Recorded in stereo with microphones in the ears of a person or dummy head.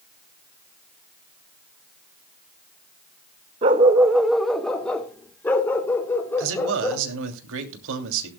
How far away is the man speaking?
About 3 m.